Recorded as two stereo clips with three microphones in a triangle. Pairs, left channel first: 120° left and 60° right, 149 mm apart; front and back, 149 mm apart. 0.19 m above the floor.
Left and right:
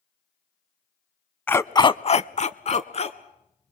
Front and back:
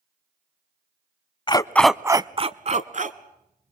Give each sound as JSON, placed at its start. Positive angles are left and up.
{"t": 1.5, "sound": "a dog barking", "azimuth_deg": 45, "distance_m": 0.6}